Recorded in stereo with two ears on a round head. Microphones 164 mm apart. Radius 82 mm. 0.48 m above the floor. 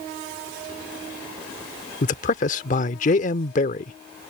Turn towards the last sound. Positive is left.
turn(degrees=45)  # may be behind; listen again after turning